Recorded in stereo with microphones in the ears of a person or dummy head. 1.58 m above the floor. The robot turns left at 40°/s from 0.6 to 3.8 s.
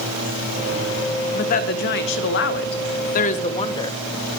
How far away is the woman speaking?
About 1.0 m.